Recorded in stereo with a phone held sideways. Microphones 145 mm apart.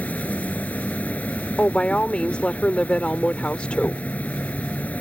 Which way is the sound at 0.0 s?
10° left (ahead or behind).